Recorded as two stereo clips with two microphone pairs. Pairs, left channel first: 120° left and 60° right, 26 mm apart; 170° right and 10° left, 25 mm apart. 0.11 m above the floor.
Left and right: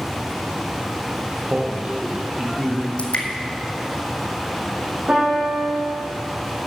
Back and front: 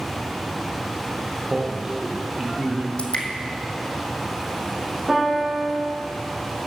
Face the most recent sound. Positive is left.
turn(degrees=-50)